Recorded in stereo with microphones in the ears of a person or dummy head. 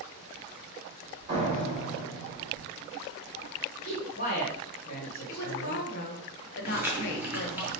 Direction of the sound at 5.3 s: 60° left (ahead or behind).